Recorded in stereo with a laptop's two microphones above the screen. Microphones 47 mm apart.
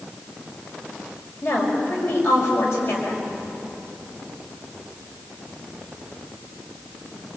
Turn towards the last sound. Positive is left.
turn(degrees=70)  # may be behind; listen again after turning